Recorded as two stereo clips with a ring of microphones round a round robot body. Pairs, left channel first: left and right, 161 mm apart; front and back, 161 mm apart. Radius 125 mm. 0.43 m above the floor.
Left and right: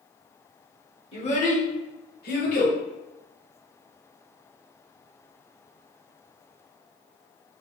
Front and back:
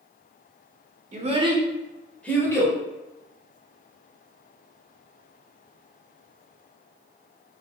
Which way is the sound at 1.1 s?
145° left.